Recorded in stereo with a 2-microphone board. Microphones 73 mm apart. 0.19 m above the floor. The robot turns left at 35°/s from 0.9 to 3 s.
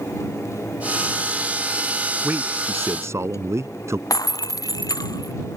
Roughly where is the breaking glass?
Left.